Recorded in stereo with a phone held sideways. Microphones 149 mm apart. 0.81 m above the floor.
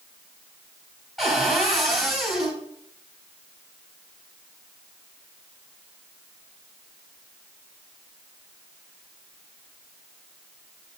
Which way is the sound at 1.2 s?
Centre (ahead or behind).